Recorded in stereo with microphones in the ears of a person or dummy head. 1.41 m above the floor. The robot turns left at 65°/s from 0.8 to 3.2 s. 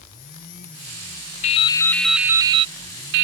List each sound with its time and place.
1.4 s dripping: 40° left; by 3.2 s 75° right